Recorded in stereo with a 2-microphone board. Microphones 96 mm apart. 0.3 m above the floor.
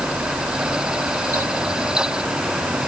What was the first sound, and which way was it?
Only background noise.